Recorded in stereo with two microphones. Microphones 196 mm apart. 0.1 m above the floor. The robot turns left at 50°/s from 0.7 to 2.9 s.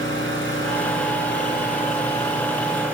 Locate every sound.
0.0 s an engine running: 100° left, 4.5 m; by 2.9 s 10° right, 4.5 m